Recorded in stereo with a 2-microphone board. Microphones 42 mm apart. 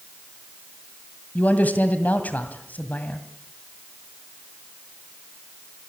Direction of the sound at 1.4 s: 40° left (ahead or behind).